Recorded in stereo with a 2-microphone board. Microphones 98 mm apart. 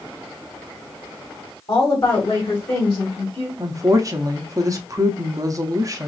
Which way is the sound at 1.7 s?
40° left (ahead or behind).